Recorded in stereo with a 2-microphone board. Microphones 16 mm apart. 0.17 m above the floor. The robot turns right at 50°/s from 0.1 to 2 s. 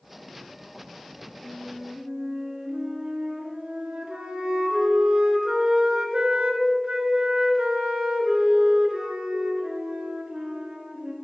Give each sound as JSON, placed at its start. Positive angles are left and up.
{"t": 1.4, "sound": "a flute", "side_deg": -50, "distance_m": 0.8}